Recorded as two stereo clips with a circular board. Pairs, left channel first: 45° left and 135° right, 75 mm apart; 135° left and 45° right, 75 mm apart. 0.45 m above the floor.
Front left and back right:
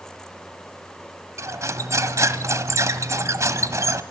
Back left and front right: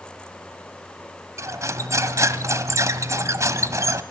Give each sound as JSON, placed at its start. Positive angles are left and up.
{"t": 1.4, "sound": "cutlery clinking", "azimuth_deg": -90, "distance_m": 1.4}